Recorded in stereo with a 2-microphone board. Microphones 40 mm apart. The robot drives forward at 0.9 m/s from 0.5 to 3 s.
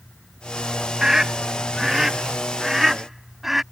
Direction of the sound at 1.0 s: 15° right (ahead or behind).